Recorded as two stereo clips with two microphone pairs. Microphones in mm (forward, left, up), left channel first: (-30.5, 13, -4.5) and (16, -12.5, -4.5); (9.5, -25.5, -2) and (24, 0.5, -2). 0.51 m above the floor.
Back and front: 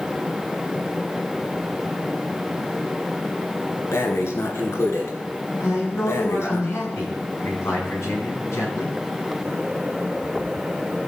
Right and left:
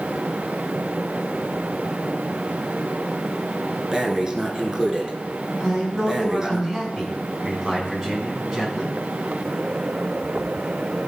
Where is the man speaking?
135° left, 4.5 m.